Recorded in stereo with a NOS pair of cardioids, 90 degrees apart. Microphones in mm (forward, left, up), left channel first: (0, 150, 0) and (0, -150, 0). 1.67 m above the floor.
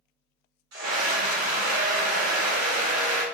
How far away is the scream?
About 1.7 m.